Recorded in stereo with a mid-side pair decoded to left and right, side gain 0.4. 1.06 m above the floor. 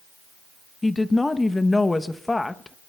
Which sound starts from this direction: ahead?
A woman speaking, at 0.8 s.